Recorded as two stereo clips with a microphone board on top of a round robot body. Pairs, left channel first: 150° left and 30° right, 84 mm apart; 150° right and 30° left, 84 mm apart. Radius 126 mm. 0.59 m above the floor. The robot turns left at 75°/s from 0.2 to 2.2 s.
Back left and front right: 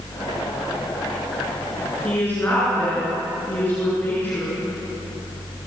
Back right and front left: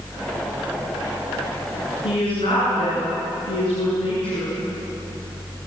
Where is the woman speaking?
130° right, 8 m; by 4.5 s 140° right, 8 m.